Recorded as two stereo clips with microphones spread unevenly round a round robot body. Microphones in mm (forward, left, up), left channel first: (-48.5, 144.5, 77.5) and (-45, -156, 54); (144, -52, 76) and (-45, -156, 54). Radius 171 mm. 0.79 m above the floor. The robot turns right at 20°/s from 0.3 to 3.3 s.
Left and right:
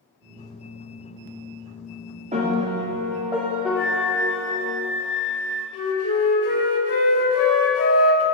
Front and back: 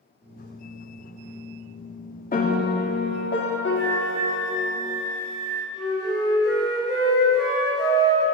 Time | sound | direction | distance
2.3 | a piano | 25° right | 1.7 m
3.8 | a flute | straight ahead | 3.5 m
5.7 | a flute | 130° left | 3 m